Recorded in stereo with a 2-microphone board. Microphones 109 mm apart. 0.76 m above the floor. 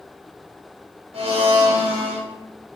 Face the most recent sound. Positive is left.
turn(degrees=-70)  # may be behind; listen again after turning